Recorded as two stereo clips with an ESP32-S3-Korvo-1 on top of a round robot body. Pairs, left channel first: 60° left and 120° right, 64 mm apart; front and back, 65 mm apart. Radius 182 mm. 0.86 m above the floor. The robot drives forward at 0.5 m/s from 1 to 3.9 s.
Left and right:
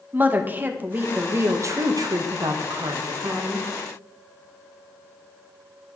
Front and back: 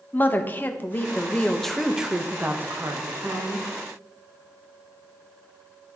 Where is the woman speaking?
60° right, 0.9 m; by 3.7 s 145° right, 1.2 m.